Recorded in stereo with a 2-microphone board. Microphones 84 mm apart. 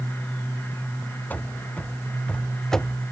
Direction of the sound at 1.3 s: 20° left (ahead or behind).